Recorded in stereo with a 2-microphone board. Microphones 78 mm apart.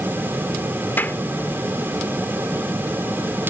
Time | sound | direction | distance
1.0 | a clap | 25° left (ahead or behind) | ?